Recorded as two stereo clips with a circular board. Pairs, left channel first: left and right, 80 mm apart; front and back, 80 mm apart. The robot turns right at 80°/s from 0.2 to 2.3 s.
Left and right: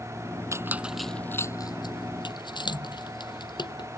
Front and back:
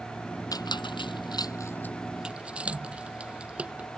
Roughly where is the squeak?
Ahead right.